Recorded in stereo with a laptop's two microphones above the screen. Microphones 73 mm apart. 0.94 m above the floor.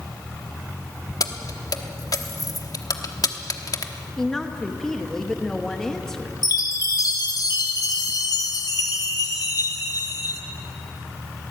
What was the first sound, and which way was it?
Keys jangling, 55° left (ahead or behind).